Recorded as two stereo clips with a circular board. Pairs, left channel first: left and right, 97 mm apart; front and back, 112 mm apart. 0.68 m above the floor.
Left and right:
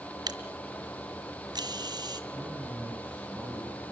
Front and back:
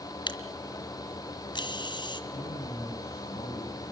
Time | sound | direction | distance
0.3 | a camera shutter | 45° right | 1.8 m
2.3 | a man speaking | 20° right | 6 m